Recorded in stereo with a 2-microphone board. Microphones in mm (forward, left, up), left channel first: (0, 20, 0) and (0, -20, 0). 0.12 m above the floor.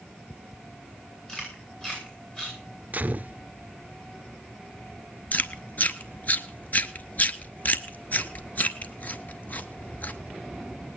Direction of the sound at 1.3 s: 20° left (ahead or behind).